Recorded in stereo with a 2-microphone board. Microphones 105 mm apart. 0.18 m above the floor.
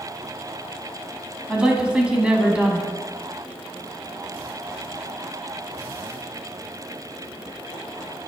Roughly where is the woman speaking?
Centre.